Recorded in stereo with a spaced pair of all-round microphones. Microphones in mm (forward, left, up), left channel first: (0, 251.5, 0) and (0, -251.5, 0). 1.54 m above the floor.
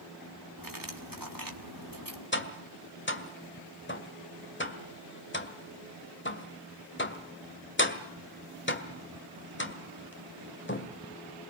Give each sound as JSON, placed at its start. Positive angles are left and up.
{"t": 0.6, "sound": "cutlery clinking", "side_deg": -40, "distance_m": 2.0}
{"t": 2.3, "sound": "tapping", "side_deg": 20, "distance_m": 1.8}